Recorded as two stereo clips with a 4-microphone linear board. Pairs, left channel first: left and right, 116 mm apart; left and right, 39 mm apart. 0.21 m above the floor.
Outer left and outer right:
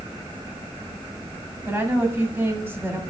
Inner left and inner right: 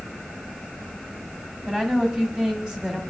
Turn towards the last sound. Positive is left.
turn(degrees=-20)  # may be behind; listen again after turning